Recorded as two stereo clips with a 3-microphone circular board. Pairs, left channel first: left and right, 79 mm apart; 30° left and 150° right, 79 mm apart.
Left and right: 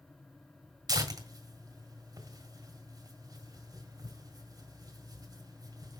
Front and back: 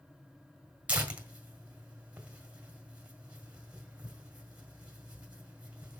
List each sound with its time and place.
0.9 s tearing paper: 80° right, 1.7 m